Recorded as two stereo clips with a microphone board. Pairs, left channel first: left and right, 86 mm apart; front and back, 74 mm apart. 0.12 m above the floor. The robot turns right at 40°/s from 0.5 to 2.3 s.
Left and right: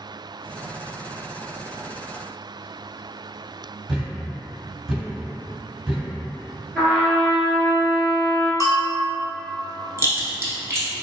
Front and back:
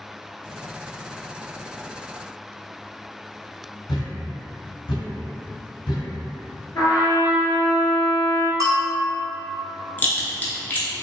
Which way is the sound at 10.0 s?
50° right.